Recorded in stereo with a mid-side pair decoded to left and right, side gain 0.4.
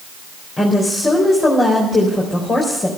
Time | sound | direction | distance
0.6 | a woman speaking | 40° left | 4 m